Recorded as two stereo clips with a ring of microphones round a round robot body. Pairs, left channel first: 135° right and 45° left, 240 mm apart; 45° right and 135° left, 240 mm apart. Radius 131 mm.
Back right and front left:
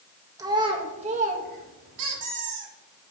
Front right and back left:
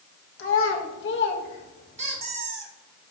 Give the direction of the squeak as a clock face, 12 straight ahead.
10 o'clock.